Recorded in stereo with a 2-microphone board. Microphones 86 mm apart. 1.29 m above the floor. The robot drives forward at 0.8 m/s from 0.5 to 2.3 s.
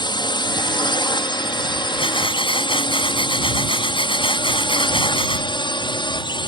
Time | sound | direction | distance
0.0 | a drone | 60° left (ahead or behind) | ?
2.0 | breathing | 80° left | ?